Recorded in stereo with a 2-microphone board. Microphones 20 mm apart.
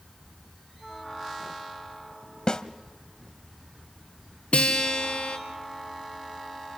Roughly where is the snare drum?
Left.